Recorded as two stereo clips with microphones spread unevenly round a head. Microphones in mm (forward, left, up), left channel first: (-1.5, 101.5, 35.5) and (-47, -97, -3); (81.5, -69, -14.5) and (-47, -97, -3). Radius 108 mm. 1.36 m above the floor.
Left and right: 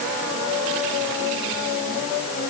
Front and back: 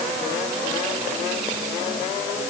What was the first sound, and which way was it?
Only background noise.